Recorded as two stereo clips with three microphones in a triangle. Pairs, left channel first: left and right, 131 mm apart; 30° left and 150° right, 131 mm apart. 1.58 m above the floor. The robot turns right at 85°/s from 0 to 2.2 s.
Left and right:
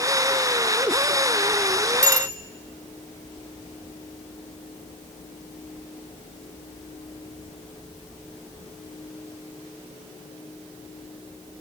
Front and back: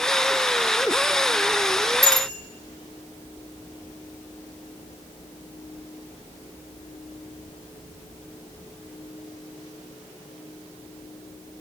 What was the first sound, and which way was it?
A bicycle bell, 80° left.